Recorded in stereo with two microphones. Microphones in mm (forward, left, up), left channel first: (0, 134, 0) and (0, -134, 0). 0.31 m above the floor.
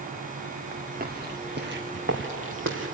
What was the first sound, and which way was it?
Footsteps, 35° right (ahead or behind).